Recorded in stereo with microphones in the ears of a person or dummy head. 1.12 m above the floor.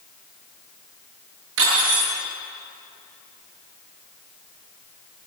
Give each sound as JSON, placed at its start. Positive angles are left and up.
{"t": 1.6, "sound": "cutlery clinking", "side_deg": -75, "distance_m": 10.0}